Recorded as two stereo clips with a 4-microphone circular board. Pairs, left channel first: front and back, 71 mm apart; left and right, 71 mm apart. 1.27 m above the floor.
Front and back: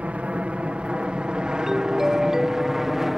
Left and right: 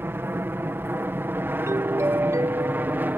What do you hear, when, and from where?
0.0 s an aircraft: 125° right; by 3.2 s 100° right
1.7 s a doorbell: 100° right